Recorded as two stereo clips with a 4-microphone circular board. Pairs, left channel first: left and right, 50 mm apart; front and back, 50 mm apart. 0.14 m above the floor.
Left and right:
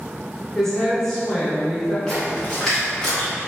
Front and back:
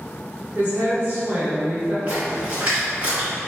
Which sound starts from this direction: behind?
A woman speaking, at 0.6 s.